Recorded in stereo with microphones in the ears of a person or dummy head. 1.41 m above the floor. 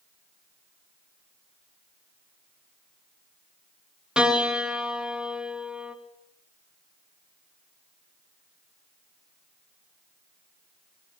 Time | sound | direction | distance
4.2 | a piano | 5° right (ahead or behind) | 3 m